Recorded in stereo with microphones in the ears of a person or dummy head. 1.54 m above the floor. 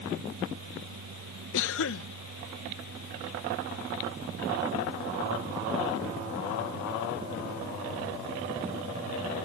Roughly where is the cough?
Left.